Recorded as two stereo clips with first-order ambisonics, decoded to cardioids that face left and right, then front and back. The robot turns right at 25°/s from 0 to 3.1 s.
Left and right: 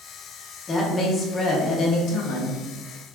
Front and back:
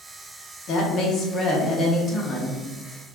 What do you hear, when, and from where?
0.7 s a woman speaking: 25° left, 0.7 m; by 2.6 s 75° left, 0.7 m